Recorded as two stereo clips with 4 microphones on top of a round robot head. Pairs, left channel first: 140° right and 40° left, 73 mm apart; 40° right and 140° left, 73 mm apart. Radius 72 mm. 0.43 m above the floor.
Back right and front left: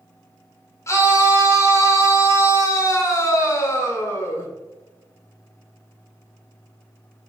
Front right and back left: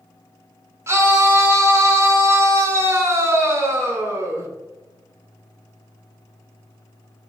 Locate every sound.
0.9 s a scream: straight behind, 1.3 m